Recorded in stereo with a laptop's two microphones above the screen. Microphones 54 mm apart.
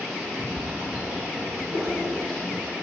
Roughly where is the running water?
Centre.